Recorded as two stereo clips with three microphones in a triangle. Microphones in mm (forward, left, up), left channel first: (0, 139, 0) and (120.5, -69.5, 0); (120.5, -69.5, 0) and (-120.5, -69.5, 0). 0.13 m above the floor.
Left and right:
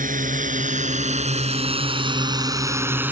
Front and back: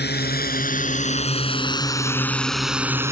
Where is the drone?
20° right; by 3.1 s 130° right.